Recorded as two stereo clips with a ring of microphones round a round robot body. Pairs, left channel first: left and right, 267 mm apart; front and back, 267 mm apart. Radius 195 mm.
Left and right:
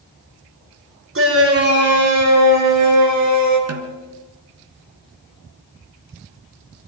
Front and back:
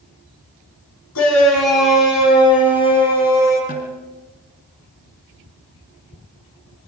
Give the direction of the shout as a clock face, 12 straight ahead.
2 o'clock.